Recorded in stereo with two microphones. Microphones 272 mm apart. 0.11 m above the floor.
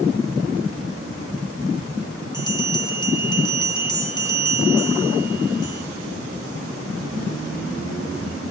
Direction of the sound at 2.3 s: 15° left (ahead or behind).